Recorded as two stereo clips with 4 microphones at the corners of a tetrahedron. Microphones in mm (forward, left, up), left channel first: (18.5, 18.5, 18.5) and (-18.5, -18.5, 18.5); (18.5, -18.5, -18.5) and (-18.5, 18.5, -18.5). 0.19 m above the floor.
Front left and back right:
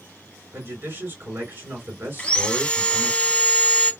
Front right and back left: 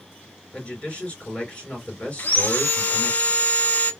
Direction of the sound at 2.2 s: 10° right.